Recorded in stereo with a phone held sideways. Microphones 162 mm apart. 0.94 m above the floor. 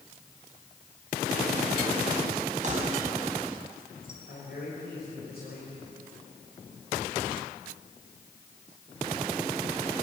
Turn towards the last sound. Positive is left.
turn(degrees=80)